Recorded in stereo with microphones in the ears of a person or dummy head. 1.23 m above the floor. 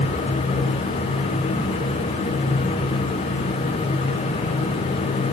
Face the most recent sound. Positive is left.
No sound to turn to.